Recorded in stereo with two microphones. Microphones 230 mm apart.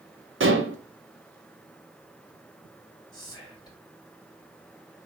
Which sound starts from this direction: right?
Dishes clattering, at 0.4 s.